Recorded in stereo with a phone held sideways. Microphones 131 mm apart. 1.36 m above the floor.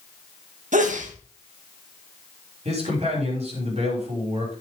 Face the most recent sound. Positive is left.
turn(degrees=-55)  # may be behind; listen again after turning